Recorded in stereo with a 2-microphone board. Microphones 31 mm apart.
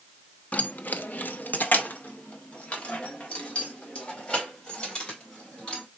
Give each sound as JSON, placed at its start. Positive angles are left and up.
{"t": 0.5, "sound": "keys jangling", "side_deg": 50, "distance_m": 0.5}